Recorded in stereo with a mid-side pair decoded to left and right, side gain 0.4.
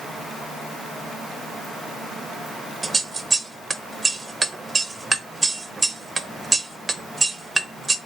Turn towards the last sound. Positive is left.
turn(degrees=-25)